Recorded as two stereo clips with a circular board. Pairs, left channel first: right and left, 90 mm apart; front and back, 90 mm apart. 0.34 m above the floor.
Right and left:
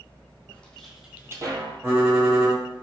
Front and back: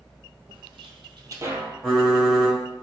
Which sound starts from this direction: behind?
Footsteps, at 0.5 s.